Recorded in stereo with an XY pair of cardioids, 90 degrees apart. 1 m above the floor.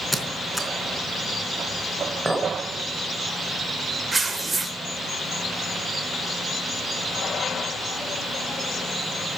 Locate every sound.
0.1 s a squeak: straight ahead, 3.5 m
2.2 s a clink: 20° right, 3 m
4.1 s tearing paper: 30° right, 4 m